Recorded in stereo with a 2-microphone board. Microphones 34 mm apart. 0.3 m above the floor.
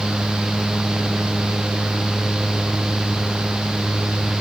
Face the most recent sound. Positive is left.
No sound to turn to.